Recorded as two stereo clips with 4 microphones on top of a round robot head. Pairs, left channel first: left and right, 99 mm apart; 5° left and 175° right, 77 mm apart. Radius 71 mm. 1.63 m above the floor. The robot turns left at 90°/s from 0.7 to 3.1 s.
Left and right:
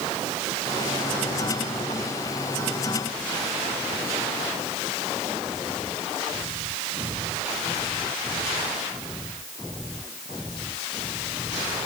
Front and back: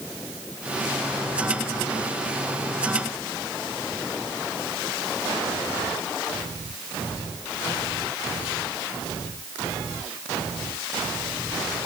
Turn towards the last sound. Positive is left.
No sound to turn to.